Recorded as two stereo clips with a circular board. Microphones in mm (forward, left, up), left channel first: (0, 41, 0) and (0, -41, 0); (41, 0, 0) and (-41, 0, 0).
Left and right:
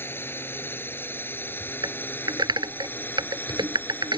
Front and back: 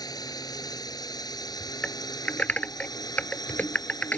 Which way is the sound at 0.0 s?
30° left.